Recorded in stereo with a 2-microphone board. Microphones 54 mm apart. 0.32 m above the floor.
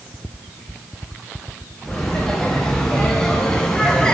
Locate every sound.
1.8 s laughter: 10° left (ahead or behind), 4 m; by 4.2 s 15° left (ahead or behind), 2.5 m